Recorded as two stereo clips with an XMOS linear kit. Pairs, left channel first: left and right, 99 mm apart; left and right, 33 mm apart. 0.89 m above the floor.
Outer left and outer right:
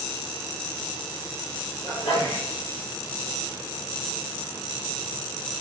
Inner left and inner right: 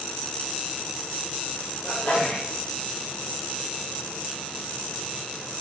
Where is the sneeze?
75° left (ahead or behind), 2.5 m.